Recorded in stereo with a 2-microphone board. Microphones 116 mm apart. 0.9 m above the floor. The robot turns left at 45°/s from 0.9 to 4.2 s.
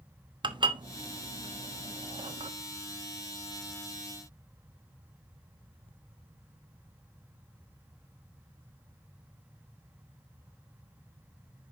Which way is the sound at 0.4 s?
45° right (ahead or behind).